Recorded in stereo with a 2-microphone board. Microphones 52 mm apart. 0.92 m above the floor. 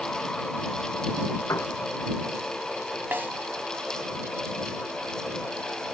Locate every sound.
1.5 s a piano: 85° left
3.1 s a snare drum: 40° right (ahead or behind)